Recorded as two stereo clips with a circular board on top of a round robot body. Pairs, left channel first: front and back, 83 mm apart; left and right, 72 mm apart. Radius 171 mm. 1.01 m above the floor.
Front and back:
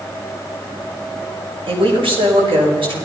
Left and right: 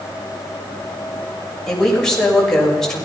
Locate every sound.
1.7 s a woman speaking: 175° left, 6 m